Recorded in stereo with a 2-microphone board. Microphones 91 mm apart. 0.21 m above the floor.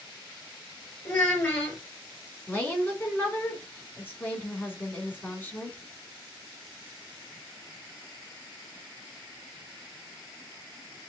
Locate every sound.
1.1 s a child speaking: 20° left (ahead or behind), 3 m
2.5 s a woman speaking: 20° left (ahead or behind), 1.9 m